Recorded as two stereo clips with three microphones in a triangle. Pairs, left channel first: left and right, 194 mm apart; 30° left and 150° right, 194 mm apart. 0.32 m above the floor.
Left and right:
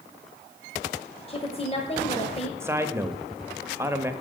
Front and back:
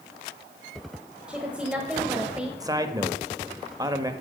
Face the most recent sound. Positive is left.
turn(degrees=-135)